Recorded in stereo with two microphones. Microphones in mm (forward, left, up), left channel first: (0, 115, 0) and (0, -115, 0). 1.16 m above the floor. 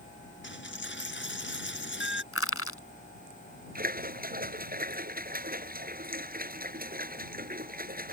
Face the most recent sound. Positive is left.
turn(degrees=-40)  # may be behind; listen again after turning